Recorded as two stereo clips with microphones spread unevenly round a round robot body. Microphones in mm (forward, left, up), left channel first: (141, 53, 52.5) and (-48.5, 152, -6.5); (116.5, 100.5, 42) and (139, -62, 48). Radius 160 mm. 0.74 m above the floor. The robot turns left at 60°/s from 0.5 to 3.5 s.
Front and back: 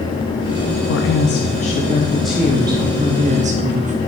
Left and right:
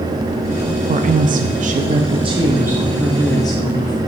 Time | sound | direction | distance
0.9 | a woman speaking | 50° right | 0.6 m